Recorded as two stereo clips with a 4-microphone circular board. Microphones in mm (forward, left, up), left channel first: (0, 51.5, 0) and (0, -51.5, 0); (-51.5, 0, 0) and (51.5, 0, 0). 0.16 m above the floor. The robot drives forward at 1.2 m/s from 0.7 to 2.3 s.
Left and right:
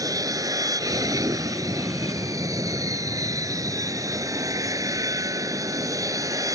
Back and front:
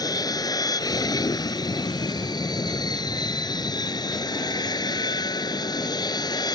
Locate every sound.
0.0 s an aircraft: 135° right; by 6.6 s 140° right